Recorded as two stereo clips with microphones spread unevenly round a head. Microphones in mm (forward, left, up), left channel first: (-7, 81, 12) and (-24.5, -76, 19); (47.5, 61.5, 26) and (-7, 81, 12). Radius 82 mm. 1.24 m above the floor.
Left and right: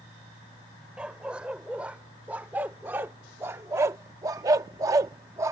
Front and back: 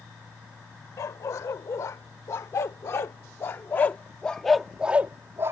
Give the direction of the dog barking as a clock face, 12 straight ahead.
12 o'clock.